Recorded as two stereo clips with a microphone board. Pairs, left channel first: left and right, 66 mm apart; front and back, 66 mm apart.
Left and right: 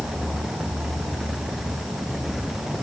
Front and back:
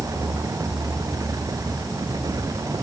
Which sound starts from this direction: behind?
An insect, at 0.0 s.